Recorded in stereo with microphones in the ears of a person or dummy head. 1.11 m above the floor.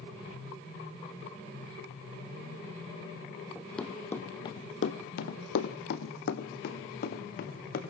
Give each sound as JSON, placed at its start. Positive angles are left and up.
{"t": 3.5, "sound": "running footsteps", "side_deg": 0, "distance_m": 2.5}